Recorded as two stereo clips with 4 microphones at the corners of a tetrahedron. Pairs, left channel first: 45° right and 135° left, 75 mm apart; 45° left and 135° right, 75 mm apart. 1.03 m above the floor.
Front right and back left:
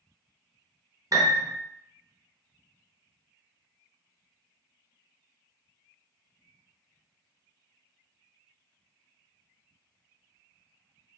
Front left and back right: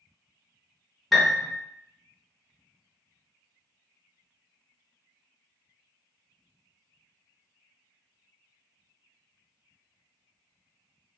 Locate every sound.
1.1 s a piano: 130° left, 0.8 m